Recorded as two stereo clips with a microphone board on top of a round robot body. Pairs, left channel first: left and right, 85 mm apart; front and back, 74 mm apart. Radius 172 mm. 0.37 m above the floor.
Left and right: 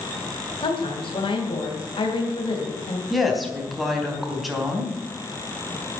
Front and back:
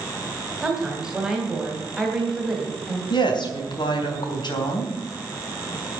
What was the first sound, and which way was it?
A woman speaking, 100° left.